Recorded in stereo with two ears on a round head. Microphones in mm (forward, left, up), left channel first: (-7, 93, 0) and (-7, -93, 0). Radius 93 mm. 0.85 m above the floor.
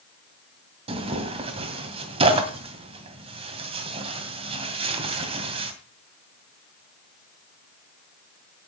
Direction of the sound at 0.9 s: 30° right (ahead or behind).